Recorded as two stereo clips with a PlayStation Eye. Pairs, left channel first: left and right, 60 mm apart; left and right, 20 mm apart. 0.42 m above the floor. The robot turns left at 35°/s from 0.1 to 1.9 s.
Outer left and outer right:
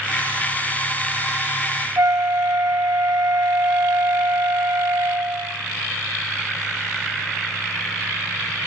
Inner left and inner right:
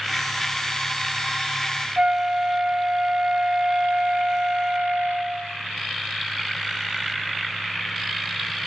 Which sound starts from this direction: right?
A flute, at 2.0 s.